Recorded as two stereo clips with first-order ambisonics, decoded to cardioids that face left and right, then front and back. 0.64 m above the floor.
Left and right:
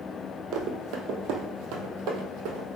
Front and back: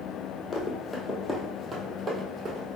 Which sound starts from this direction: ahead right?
Running footsteps, at 0.5 s.